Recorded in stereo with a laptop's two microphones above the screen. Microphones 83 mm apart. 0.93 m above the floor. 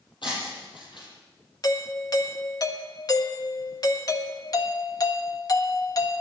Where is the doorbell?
45° left (ahead or behind), 1.4 m.